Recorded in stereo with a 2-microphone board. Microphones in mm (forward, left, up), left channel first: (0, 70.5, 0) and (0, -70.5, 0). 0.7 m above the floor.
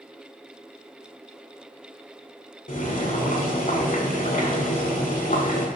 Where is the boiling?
70° left (ahead or behind), 1.5 m.